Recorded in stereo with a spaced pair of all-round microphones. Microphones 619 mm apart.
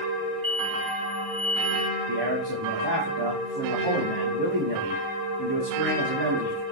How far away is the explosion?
About 5 m.